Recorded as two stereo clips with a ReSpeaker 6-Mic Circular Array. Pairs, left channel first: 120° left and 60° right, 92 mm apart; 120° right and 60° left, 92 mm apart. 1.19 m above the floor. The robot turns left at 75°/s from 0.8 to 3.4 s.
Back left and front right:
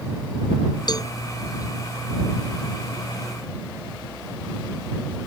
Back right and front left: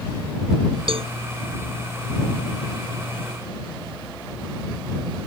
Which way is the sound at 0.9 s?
80° left.